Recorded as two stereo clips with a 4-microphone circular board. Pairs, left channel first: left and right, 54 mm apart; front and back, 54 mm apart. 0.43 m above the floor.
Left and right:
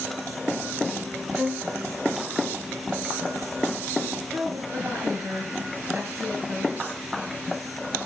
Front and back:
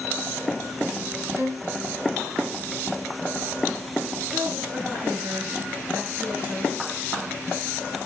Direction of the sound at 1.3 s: 175° right.